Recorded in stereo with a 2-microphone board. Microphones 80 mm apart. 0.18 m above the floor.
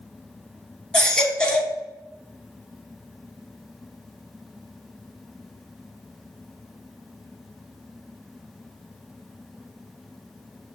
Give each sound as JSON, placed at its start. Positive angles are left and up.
{"t": 0.9, "sound": "a baby crying", "side_deg": 10, "distance_m": 0.8}